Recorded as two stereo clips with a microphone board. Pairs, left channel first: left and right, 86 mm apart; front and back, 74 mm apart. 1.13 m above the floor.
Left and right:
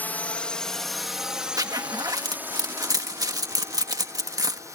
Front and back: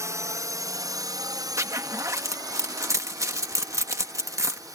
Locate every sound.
0.0 s a drone: 155° left; by 4.8 s 140° right
1.6 s a zipper: 135° right